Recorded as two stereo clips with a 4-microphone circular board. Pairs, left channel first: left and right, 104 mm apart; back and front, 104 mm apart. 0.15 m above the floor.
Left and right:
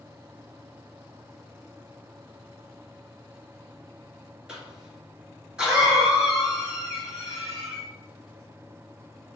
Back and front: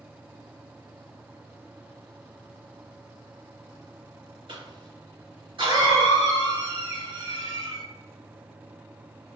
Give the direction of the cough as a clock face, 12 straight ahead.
12 o'clock.